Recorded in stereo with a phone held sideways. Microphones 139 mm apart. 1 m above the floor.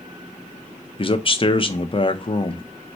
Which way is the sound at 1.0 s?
40° left (ahead or behind).